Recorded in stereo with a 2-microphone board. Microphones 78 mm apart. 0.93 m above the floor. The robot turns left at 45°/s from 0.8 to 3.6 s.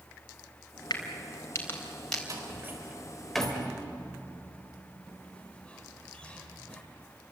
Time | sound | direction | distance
0.9 | a crack | 65° left (ahead or behind) | 4 m
2.3 | a door slam | 45° right (ahead or behind) | 3.5 m